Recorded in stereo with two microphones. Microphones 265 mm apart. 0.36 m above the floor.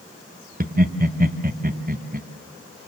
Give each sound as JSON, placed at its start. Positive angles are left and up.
{"t": 0.6, "sound": "laughter", "side_deg": -35, "distance_m": 1.2}